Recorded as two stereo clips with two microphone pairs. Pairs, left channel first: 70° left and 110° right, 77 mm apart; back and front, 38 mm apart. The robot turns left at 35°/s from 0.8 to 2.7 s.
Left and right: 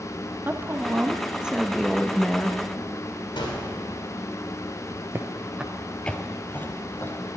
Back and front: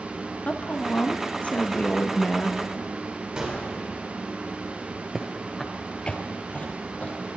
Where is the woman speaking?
165° right, 0.8 m; by 2.5 s 135° left, 0.8 m.